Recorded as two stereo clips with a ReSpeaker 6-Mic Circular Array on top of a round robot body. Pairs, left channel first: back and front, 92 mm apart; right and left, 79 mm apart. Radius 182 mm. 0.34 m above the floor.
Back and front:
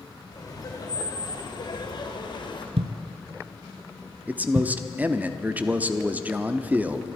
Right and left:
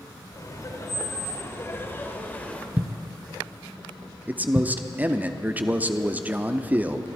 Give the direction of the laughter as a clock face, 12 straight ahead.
4 o'clock.